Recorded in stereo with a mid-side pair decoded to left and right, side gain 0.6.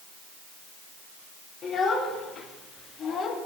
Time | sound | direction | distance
1.6 | a child speaking | 40° left | 3.5 m